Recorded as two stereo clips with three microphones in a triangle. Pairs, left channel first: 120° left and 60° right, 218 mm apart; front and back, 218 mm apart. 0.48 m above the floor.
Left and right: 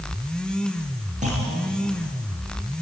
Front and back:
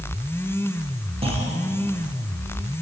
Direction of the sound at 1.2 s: 115° right.